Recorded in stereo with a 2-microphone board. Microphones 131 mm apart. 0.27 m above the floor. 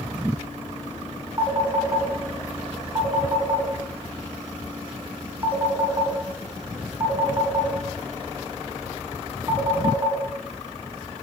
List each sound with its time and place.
1.4 s a phone ringing: 20° right (ahead or behind), 0.9 m